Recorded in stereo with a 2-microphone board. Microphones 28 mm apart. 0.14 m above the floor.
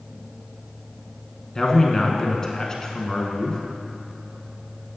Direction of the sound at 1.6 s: 20° left (ahead or behind).